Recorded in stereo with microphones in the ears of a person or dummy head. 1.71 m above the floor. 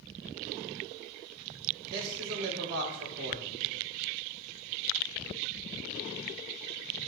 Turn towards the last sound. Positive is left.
turn(degrees=-55)  # may be behind; listen again after turning